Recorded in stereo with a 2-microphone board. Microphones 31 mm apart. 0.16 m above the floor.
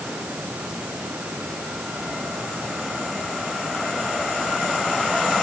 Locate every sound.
0.0 s running water: 50° right (ahead or behind)